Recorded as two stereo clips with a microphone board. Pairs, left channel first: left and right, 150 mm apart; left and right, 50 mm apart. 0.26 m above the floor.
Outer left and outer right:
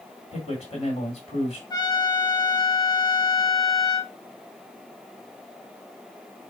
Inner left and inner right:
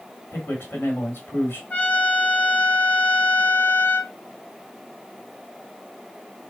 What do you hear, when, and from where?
0.3 s a man speaking: 40° left (ahead or behind), 1.6 m
1.7 s a trumpet: 25° left (ahead or behind), 1.0 m